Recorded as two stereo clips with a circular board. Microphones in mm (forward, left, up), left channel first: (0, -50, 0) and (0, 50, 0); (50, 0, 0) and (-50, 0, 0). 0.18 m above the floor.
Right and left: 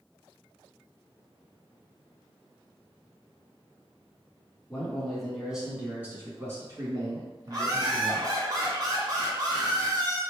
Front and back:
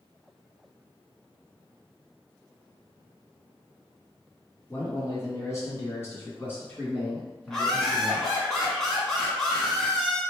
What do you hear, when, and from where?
4.7 s a man speaking: 20° right, 1.8 m; by 8.3 s 80° left, 2.5 m
7.5 s laughter: 85° left, 1.4 m